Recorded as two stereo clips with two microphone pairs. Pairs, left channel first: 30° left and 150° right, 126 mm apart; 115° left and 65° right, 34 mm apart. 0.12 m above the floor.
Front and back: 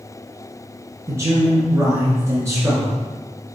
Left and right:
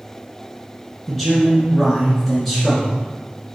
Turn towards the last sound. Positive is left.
turn(degrees=-160)